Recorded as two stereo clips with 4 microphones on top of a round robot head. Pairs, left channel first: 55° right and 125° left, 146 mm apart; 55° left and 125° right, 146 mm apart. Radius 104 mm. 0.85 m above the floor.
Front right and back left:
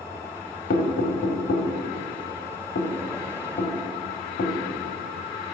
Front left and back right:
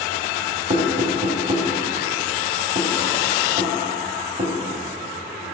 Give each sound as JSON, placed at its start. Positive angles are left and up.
{"t": 0.7, "sound": "knocking", "azimuth_deg": -75, "distance_m": 1.9}